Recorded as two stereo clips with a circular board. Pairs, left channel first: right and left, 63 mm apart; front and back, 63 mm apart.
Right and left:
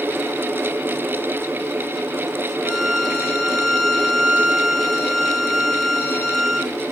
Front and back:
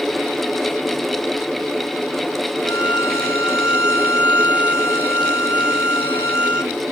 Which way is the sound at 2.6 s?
15° right.